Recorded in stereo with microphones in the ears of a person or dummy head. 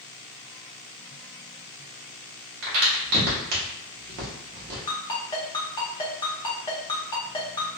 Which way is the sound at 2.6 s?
50° right (ahead or behind).